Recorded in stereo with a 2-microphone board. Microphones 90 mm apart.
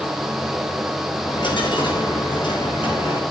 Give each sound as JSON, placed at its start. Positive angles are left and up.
{"t": 1.2, "sound": "a dropped coin", "side_deg": 65, "distance_m": 5.5}